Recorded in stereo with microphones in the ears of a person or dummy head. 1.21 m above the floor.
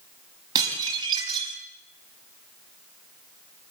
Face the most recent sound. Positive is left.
turn(degrees=-20)  # may be behind; listen again after turning